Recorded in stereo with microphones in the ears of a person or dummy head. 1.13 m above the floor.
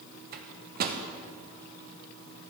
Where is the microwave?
45° right (ahead or behind), 0.7 m.